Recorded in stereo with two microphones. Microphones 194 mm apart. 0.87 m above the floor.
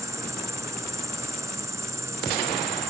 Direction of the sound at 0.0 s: 15° right (ahead or behind).